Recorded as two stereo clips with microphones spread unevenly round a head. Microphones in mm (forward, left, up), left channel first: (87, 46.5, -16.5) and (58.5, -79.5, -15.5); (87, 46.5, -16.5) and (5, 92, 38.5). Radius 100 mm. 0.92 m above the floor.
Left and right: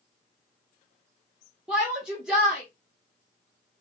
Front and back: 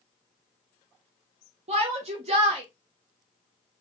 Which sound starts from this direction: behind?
A shout, at 1.7 s.